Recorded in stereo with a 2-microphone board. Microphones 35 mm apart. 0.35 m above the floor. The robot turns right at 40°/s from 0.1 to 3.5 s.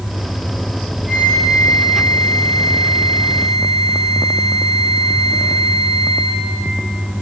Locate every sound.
1.1 s a flute: 20° right, 6.5 m; by 6.4 s 80° left, 6.5 m